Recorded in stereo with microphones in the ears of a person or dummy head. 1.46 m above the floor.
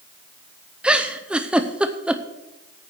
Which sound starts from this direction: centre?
A giggle, at 0.8 s.